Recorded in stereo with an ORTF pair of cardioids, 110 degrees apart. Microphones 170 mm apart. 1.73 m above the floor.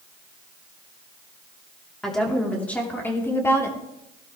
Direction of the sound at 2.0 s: Straight ahead.